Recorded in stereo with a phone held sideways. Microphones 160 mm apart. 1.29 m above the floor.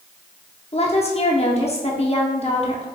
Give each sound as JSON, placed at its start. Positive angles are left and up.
{"t": 0.7, "sound": "a woman speaking", "side_deg": 40, "distance_m": 0.8}